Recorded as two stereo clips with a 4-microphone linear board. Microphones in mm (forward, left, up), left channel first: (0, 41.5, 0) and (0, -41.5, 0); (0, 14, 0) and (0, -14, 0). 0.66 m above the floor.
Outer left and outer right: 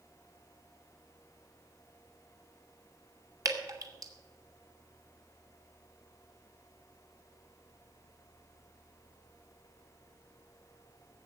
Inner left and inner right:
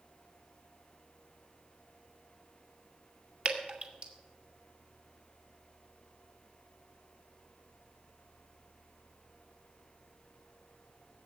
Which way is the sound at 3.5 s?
45° right (ahead or behind).